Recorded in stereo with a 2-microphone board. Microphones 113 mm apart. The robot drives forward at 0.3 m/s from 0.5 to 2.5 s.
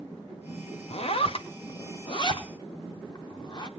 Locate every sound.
0.9 s a zipper: 60° left (ahead or behind), 0.7 m; by 3.7 s 40° left (ahead or behind), 1.0 m